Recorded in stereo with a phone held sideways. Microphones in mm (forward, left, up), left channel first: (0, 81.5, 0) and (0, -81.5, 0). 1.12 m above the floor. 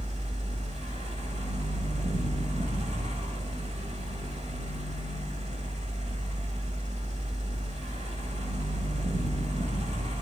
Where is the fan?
45° right (ahead or behind), 1.1 m.